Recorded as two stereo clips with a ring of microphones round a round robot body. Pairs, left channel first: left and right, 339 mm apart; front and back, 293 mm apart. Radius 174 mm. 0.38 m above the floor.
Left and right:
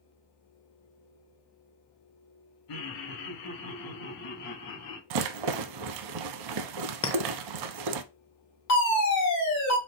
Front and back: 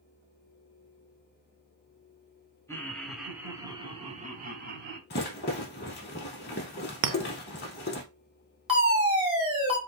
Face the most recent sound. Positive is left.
turn(degrees=110)